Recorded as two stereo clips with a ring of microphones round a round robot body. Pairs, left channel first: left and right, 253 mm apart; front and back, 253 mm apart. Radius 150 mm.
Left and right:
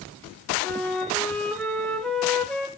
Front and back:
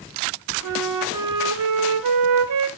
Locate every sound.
0.6 s a flute: straight behind, 1.0 m